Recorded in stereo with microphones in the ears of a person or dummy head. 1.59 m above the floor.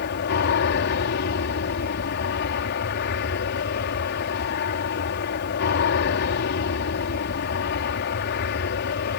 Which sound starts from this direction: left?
An aircraft, at 0.0 s.